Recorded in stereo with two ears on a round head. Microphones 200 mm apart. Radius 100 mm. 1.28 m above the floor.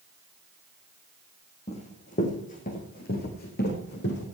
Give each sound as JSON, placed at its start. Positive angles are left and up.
{"t": 1.7, "sound": "running footsteps", "side_deg": 30, "distance_m": 4.0}